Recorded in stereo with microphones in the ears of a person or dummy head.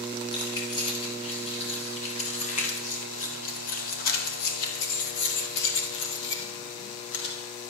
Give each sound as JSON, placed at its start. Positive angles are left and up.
{"t": 0.3, "sound": "keys jangling", "side_deg": 25, "distance_m": 5.0}